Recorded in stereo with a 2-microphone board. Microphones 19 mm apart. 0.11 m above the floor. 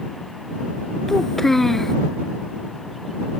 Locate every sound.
1.1 s a child speaking: 20° left (ahead or behind)